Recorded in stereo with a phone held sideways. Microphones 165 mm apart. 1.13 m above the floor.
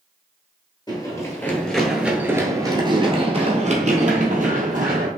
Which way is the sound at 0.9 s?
25° left (ahead or behind).